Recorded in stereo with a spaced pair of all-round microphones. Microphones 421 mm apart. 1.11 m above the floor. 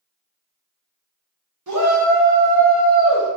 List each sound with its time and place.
1.7 s a shout: 45° right (ahead or behind), 1.0 m; by 3.3 s 15° left (ahead or behind), 1.2 m